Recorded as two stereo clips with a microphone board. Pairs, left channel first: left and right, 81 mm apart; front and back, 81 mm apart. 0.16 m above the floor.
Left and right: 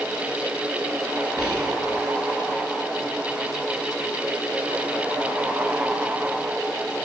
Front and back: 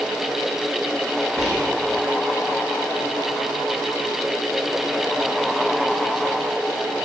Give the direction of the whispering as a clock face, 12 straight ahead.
9 o'clock.